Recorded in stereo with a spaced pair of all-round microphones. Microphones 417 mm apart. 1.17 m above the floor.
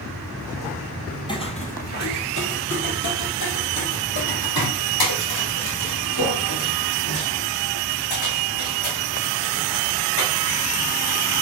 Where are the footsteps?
10° left (ahead or behind), 1.7 m; by 11.4 s 75° left (ahead or behind), 6 m.